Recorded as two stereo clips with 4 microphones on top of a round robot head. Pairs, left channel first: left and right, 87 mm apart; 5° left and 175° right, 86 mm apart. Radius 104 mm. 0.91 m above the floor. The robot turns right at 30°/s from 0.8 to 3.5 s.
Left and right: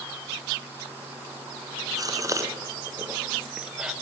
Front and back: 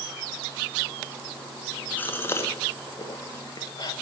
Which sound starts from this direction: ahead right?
A gasp, at 2.0 s.